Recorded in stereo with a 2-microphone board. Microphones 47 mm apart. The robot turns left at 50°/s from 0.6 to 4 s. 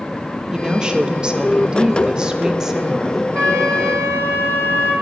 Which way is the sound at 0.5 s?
15° right (ahead or behind).